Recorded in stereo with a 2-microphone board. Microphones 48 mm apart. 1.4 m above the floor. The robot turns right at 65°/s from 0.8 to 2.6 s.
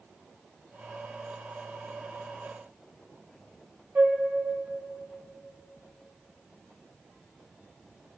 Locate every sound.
4.0 s a flute: 45° right (ahead or behind), 0.6 m